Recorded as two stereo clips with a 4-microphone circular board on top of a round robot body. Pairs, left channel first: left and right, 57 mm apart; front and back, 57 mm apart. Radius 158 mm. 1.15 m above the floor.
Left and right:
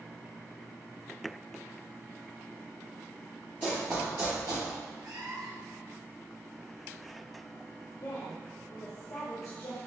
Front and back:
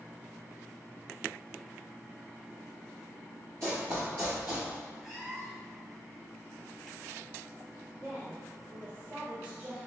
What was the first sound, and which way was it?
Running footsteps, 145° left.